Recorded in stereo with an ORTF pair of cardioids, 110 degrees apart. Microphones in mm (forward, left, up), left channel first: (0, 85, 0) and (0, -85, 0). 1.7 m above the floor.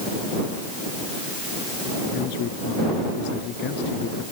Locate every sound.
2.1 s a man speaking: 70° left